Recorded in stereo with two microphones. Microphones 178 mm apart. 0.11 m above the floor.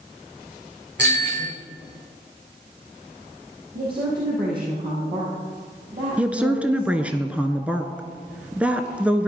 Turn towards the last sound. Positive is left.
turn(degrees=-5)  # may be behind; listen again after turning